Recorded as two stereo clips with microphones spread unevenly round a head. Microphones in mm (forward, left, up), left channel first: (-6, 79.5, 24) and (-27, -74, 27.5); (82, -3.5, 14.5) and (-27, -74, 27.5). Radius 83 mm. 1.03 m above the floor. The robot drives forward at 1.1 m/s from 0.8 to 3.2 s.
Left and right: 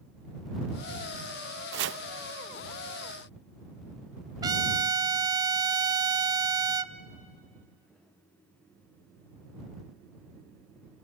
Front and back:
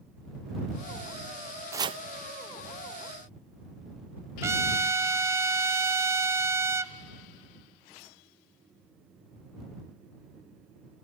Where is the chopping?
75° right, 0.6 m; by 2.0 s 105° right, 0.6 m.